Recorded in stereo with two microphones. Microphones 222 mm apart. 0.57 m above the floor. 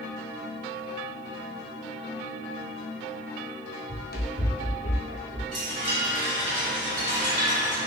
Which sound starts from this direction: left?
Running footsteps, at 3.9 s.